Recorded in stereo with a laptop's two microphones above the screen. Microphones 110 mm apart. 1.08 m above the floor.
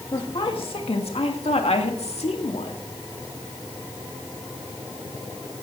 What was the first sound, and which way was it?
A woman speaking, 50° left (ahead or behind).